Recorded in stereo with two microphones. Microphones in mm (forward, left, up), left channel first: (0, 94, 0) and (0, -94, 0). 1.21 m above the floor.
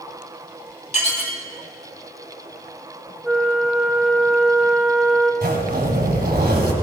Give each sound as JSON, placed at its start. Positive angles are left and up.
{"t": 0.9, "sound": "dishes clattering", "side_deg": 40, "distance_m": 2.0}
{"t": 3.2, "sound": "a flute", "side_deg": 0, "distance_m": 1.8}
{"t": 5.4, "sound": "a zipper", "side_deg": -55, "distance_m": 3.5}